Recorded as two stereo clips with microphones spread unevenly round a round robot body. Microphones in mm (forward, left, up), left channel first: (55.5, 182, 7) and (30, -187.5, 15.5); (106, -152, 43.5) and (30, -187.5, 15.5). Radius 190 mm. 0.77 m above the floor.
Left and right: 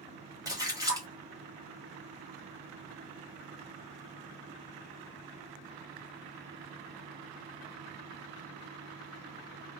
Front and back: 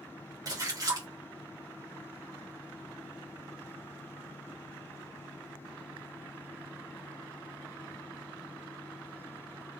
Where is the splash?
175° right, 1.1 m.